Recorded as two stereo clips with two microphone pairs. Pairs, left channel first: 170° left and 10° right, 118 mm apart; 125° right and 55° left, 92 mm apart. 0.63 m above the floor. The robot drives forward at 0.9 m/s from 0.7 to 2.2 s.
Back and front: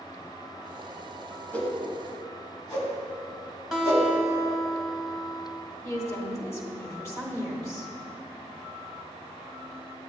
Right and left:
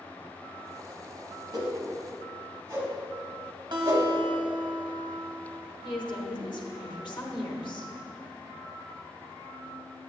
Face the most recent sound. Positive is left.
turn(degrees=-125)